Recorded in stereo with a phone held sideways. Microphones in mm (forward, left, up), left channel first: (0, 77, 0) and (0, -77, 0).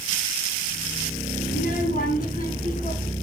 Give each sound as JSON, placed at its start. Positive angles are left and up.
{"t": 1.5, "sound": "a child speaking", "side_deg": 70, "distance_m": 4.5}